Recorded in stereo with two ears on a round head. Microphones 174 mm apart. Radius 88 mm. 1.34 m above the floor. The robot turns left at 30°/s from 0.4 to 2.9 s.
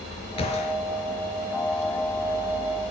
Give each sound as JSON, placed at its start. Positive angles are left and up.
{"t": 0.4, "sound": "a gunshot", "side_deg": 30, "distance_m": 4.0}